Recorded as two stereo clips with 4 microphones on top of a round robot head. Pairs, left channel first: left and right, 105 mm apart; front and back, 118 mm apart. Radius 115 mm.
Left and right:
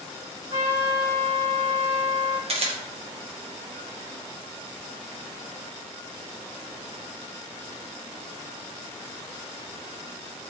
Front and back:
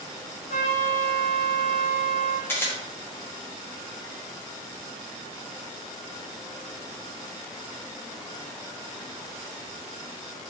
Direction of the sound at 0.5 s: 30° right.